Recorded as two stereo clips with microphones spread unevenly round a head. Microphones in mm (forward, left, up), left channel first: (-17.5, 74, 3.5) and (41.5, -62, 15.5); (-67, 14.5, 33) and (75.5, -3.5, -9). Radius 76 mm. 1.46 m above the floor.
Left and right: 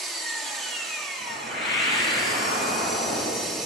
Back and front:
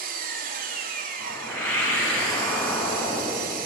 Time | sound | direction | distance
0.0 | an engine running | 25° left | 3 m
1.2 | a whoosh | 100° left | 8.5 m